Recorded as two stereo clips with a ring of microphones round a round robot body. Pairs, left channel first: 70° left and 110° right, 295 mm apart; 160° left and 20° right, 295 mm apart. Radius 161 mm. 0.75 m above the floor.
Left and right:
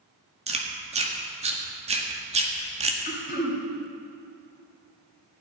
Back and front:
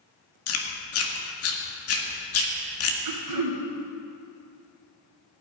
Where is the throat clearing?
5° left, 3 m.